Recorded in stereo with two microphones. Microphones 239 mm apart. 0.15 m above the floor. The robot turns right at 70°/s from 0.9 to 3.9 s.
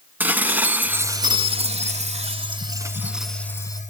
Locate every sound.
0.2 s dishes clattering: 5° right (ahead or behind), 0.8 m; by 3.8 s 15° left (ahead or behind), 0.8 m